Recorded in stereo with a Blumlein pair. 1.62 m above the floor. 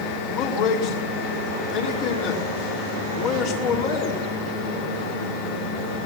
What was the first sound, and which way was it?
A man speaking, 40° left.